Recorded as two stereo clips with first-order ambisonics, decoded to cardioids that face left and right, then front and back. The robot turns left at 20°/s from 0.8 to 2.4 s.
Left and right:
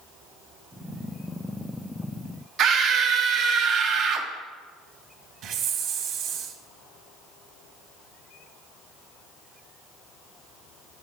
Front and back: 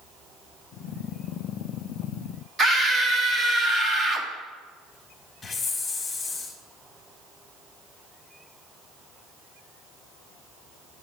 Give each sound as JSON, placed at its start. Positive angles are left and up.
{"t": 2.6, "sound": "a scream", "azimuth_deg": -120, "distance_m": 0.7}
{"t": 5.4, "sound": "a hiss", "azimuth_deg": -70, "distance_m": 0.7}